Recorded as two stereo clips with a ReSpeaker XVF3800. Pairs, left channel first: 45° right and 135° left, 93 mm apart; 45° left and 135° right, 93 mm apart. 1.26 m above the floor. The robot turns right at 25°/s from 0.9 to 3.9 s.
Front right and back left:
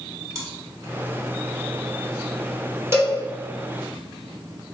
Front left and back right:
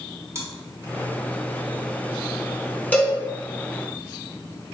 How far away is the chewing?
About 1.2 m.